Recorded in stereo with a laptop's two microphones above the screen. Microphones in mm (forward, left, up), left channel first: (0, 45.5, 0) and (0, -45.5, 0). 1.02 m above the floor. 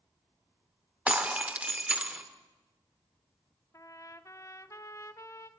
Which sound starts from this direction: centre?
Breaking glass, at 1.1 s.